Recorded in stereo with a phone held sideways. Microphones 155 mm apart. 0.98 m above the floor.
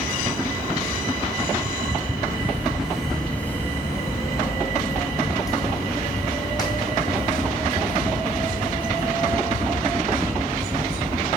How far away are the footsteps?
About 0.9 m.